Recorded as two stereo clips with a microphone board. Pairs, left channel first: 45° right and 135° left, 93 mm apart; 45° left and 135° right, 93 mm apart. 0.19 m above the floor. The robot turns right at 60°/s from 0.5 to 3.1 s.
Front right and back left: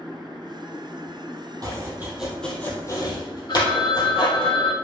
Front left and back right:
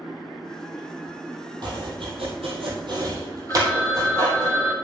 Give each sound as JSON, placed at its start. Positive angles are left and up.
{"t": 1.6, "sound": "chopping", "azimuth_deg": -175, "distance_m": 2.5}
{"t": 3.5, "sound": "a phone ringing", "azimuth_deg": -20, "distance_m": 1.7}